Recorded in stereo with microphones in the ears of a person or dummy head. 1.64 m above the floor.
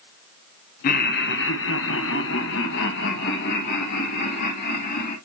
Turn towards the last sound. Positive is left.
turn(degrees=60)  # may be behind; listen again after turning